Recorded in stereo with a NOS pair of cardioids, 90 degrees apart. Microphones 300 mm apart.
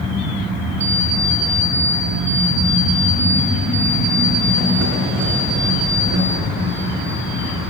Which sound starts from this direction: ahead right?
An alarm clock, at 0.8 s.